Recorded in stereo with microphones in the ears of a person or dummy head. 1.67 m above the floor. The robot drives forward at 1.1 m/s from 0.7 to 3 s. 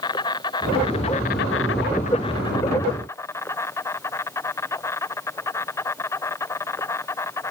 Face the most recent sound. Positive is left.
turn(degrees=15)  # may be behind; listen again after turning